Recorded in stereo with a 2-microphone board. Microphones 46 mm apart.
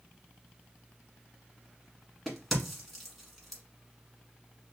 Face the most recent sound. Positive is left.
turn(degrees=0)  # may be behind; listen again after turning